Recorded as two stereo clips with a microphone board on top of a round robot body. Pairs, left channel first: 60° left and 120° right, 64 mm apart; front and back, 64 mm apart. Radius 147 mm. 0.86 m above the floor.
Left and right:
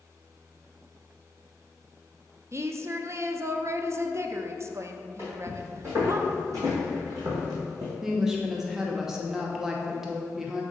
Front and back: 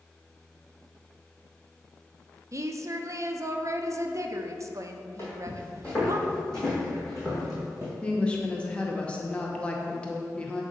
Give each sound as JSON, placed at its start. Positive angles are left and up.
{"t": 2.5, "sound": "a woman speaking", "azimuth_deg": -155, "distance_m": 0.7}
{"t": 5.2, "sound": "footsteps", "azimuth_deg": -60, "distance_m": 1.8}
{"t": 8.0, "sound": "a woman speaking", "azimuth_deg": -45, "distance_m": 0.8}